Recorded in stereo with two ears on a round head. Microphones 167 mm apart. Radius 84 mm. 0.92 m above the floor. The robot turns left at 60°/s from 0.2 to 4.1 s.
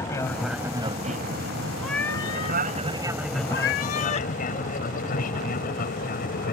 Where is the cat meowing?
Straight behind; by 4.3 s 45° left.